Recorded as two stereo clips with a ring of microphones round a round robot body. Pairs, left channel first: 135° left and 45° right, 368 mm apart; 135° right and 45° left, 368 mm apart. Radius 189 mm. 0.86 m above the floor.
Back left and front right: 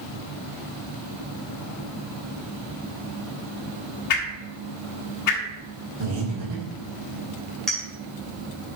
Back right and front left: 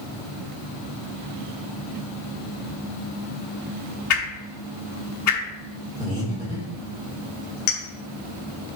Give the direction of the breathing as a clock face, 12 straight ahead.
2 o'clock.